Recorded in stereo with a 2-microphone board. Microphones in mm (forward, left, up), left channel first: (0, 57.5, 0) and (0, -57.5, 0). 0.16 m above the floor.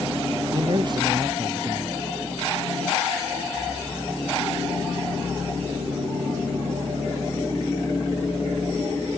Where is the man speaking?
40° right (ahead or behind).